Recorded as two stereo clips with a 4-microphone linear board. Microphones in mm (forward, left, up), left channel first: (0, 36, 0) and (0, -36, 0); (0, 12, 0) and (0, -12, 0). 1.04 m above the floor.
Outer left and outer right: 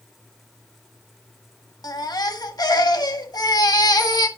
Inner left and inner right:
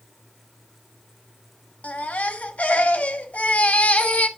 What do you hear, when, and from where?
1.8 s a baby crying: 60° left (ahead or behind), 1.4 m